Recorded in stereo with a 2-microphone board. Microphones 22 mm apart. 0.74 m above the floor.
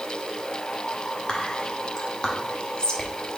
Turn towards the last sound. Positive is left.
turn(degrees=40)  # may be behind; listen again after turning